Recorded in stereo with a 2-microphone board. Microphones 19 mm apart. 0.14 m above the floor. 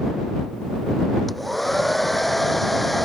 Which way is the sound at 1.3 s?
5° left (ahead or behind).